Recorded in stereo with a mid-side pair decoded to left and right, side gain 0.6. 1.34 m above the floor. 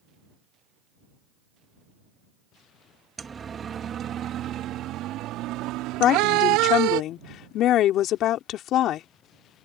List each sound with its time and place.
3.2 s a siren: 25° right; by 7.0 s 80° right
6.0 s a woman speaking: 60° left